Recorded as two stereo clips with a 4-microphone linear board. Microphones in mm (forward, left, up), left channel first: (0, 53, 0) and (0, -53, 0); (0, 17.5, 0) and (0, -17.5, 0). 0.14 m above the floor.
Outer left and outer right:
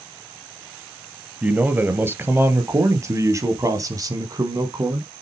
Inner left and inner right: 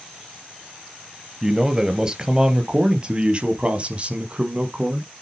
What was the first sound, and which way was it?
A man speaking, 15° right (ahead or behind).